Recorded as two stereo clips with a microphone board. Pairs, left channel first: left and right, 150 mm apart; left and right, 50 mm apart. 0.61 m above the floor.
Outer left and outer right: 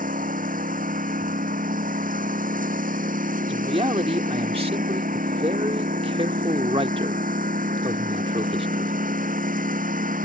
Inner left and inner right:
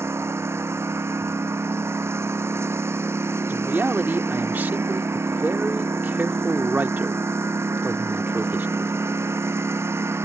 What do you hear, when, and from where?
0.0 s a lawn mower: 75° right (ahead or behind)
3.5 s a man speaking: 40° right (ahead or behind)